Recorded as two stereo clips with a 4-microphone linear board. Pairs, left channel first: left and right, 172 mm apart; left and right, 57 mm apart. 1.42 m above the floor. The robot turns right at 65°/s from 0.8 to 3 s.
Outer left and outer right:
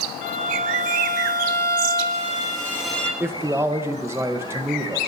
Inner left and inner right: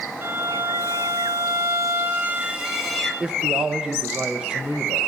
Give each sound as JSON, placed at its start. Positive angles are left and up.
{"t": 0.2, "sound": "a violin", "azimuth_deg": -135, "distance_m": 3.5}
{"t": 3.2, "sound": "a man speaking", "side_deg": -15, "distance_m": 1.1}